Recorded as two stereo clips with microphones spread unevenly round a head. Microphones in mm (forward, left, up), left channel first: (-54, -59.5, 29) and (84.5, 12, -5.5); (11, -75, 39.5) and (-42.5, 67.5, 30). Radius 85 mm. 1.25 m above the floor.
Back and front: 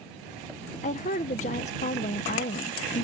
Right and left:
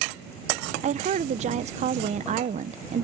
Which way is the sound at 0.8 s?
155° left.